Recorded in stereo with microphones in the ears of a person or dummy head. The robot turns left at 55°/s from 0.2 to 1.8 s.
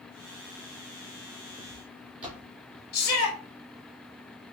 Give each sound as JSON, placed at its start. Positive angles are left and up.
{"t": 1.6, "sound": "footsteps", "side_deg": -5, "distance_m": 2.5}
{"t": 2.9, "sound": "a shout", "side_deg": 60, "distance_m": 1.2}